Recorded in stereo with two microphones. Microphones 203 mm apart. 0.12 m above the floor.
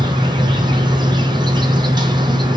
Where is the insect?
20° right (ahead or behind), 1.5 m.